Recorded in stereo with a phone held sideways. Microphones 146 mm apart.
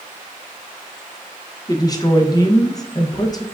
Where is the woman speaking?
25° left (ahead or behind), 0.6 m.